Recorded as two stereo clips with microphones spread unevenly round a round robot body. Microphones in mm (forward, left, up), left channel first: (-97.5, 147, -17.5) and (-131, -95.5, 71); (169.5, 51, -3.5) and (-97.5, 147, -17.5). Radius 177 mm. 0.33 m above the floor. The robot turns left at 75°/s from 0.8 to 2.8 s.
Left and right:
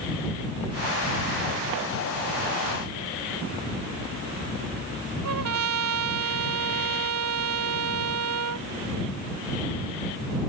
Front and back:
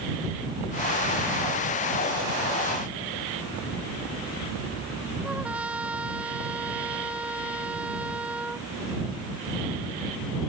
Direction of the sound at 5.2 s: 115° right.